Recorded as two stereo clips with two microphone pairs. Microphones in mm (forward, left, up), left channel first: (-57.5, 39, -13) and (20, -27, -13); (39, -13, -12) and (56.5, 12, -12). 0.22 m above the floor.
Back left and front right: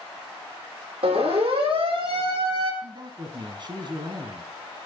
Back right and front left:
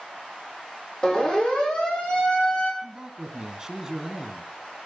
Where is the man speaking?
20° right, 2.5 m.